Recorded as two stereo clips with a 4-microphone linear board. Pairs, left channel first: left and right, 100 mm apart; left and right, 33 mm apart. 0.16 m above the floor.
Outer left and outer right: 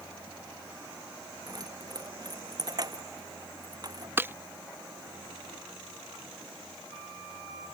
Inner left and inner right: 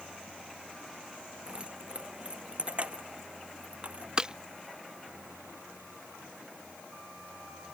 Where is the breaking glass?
20° right (ahead or behind).